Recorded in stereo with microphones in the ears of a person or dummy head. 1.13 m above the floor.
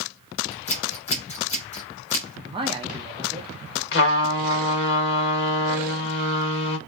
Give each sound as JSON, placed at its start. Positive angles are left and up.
{"t": 0.5, "sound": "scissors", "side_deg": 35, "distance_m": 0.8}
{"t": 2.4, "sound": "a man speaking", "side_deg": -25, "distance_m": 0.6}
{"t": 3.9, "sound": "a trumpet", "side_deg": 65, "distance_m": 0.9}